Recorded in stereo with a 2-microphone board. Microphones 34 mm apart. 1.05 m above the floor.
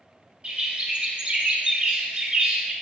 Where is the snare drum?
I don't hear a snare drum.